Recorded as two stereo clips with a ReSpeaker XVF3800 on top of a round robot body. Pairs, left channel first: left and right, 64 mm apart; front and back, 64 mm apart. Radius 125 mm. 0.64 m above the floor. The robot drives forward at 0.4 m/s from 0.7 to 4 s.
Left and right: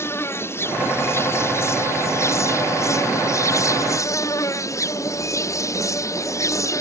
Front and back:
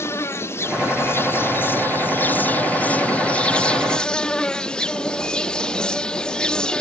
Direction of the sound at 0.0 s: 45° left.